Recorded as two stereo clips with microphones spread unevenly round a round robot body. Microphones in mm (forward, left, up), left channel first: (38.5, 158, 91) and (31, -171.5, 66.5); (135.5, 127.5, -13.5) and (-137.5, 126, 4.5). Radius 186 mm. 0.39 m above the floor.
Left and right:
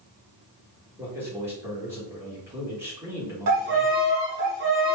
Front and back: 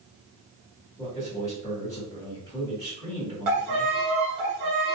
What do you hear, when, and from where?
1.0 s a man speaking: 35° right, 1.4 m
3.5 s a violin: 145° right, 0.9 m